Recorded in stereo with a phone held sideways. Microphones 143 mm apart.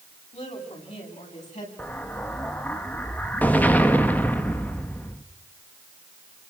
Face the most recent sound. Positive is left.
turn(degrees=10)  # may be behind; listen again after turning